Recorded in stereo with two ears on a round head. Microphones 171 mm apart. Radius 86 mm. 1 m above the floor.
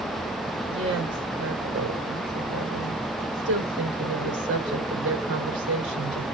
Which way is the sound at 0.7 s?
60° right (ahead or behind).